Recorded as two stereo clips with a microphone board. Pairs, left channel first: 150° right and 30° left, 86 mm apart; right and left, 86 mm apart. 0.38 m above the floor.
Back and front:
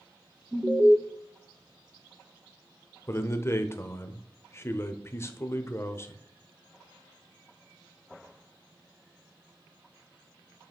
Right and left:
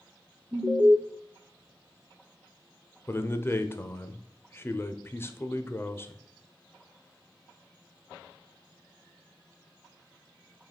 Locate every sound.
0.5 s an alarm: 80° left, 0.9 m
3.1 s a man speaking: 125° right, 0.9 m